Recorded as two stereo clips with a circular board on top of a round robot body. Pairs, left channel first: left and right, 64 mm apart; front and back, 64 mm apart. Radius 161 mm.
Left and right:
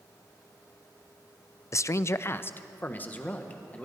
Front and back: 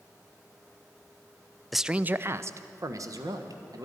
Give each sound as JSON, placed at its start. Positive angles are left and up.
{"t": 1.7, "sound": "a man speaking", "azimuth_deg": 90, "distance_m": 0.5}